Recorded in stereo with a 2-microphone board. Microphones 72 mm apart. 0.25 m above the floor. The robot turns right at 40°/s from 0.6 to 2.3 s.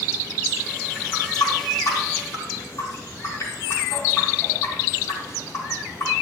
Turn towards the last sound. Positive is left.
turn(degrees=40)  # may be behind; listen again after turning